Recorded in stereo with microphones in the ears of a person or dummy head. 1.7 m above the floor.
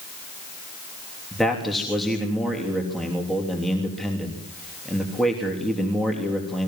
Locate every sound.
1.3 s a man speaking: centre (ahead or behind), 3 m